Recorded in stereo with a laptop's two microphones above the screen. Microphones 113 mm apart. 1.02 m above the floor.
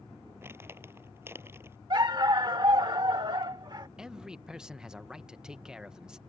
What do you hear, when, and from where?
0.4 s crumpling: 20° right (ahead or behind)
1.9 s a dog barking: 40° right (ahead or behind)
4.0 s a man speaking: 5° right (ahead or behind)